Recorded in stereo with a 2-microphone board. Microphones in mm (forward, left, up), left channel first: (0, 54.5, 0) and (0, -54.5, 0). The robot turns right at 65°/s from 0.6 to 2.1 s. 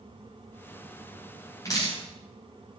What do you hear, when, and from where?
1.6 s dripping: 30° left (ahead or behind), 6.5 m; by 2.0 s 50° left (ahead or behind), 6.5 m